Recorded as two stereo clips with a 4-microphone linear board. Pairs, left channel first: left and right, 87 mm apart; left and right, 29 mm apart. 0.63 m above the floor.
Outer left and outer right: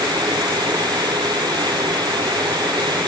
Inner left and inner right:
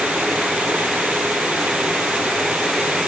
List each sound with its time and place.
Only background noise.